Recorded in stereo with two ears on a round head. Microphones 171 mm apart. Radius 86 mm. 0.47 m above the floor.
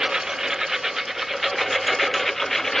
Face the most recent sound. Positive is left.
turn(degrees=0)  # may be behind; listen again after turning